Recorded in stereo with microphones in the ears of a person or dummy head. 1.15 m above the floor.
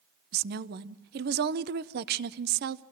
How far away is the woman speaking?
About 0.7 m.